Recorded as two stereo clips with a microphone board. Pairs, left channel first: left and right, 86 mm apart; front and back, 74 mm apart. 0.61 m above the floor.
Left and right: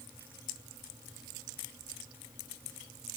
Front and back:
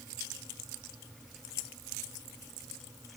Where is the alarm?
No alarm in this recording.